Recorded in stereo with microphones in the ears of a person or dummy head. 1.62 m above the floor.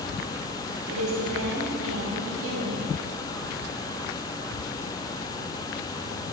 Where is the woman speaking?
75° right (ahead or behind), 1.5 m.